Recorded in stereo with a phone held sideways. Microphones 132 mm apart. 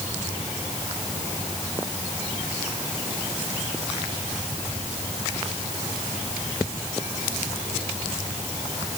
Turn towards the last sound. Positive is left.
No sound to turn to.